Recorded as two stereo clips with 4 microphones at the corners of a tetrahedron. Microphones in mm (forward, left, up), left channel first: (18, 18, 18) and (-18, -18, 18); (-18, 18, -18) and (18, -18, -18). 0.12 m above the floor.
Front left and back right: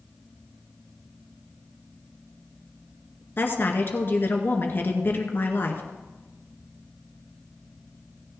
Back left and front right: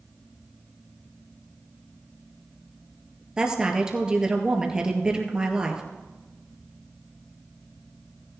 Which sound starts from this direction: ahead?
A woman speaking, at 3.4 s.